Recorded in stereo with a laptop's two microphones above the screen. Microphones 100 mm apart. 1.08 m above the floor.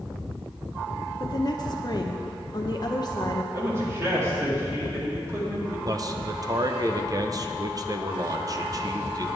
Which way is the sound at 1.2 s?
45° left (ahead or behind).